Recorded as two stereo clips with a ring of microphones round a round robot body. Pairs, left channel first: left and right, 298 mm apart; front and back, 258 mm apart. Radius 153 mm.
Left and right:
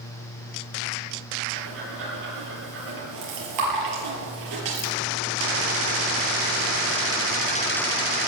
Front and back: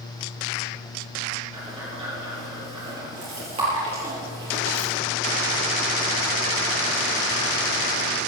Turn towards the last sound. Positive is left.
turn(degrees=-105)